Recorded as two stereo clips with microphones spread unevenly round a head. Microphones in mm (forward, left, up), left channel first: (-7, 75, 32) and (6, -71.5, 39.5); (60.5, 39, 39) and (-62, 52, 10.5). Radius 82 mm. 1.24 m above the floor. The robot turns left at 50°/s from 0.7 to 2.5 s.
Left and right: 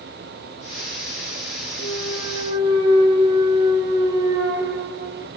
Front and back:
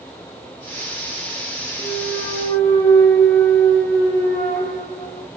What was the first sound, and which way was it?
A clunk, 5° right.